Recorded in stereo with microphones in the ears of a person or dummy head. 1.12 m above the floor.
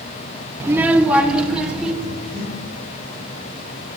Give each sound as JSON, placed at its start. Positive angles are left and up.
{"t": 0.6, "sound": "a child speaking", "side_deg": -15, "distance_m": 0.9}
{"t": 2.0, "sound": "breathing", "side_deg": 60, "distance_m": 3.5}